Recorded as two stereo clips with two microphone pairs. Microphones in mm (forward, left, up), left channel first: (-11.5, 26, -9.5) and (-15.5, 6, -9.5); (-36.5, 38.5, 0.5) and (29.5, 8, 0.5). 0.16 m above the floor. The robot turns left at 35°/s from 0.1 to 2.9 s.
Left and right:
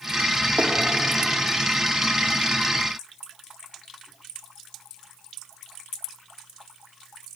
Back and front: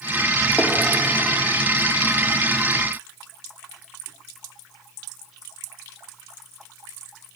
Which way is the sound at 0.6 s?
130° right.